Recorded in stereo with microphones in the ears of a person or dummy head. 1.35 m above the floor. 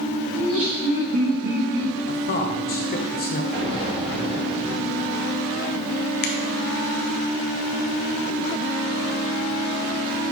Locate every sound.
0.3 s laughter: 40° right (ahead or behind), 2.5 m; by 1.9 s 65° right (ahead or behind), 2 m
2.1 s a man speaking: 45° left (ahead or behind), 0.9 m
3.5 s an explosion: 35° right (ahead or behind), 1.6 m
6.2 s a finger snap: 50° left (ahead or behind), 0.7 m